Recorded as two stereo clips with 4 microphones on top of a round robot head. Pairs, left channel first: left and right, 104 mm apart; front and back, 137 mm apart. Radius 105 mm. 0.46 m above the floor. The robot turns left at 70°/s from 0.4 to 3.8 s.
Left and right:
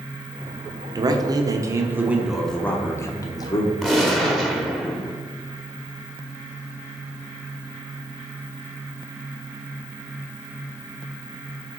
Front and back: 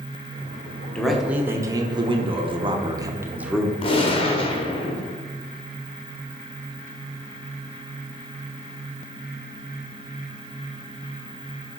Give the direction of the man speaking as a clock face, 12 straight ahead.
3 o'clock.